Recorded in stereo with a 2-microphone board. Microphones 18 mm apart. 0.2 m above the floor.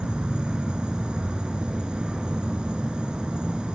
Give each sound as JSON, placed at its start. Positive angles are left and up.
{"t": 0.0, "sound": "an insect", "side_deg": -70, "distance_m": 1.5}